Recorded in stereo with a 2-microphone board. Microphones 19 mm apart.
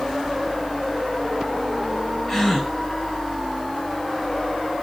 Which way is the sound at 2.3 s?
15° left (ahead or behind).